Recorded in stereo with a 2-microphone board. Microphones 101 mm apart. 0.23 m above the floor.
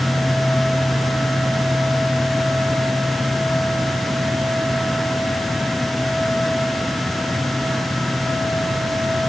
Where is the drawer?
No drawer in this recording.